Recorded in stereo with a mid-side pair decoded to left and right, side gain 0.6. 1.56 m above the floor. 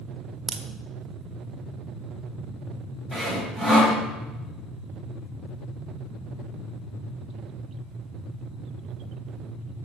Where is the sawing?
15° left, 5.5 m.